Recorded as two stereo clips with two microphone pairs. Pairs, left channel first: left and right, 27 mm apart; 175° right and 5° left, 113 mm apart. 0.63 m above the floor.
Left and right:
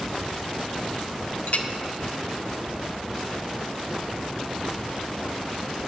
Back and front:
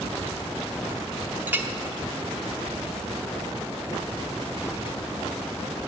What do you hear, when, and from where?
1.5 s a clink: 75° left, 1.0 m